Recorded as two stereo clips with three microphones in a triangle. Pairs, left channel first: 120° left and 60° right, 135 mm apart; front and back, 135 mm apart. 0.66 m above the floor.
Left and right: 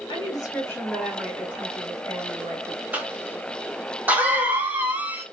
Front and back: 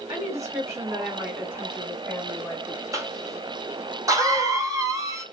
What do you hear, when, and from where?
0.1 s a woman speaking: 135° left, 1.3 m; by 2.8 s 80° right, 1.6 m
2.9 s a cough: 130° right, 0.7 m